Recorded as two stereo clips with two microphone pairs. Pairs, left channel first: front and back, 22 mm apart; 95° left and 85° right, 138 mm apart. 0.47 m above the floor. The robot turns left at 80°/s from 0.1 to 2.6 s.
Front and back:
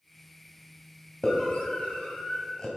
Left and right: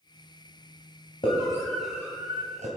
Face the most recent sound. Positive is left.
turn(degrees=-60)